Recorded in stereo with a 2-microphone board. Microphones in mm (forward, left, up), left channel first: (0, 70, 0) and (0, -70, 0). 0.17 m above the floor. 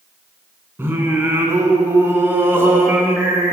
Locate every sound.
0.8 s singing: 15° right (ahead or behind), 1.6 m